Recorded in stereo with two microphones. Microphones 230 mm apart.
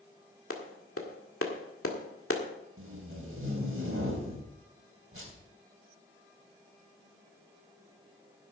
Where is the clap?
70° left (ahead or behind), 1.8 m.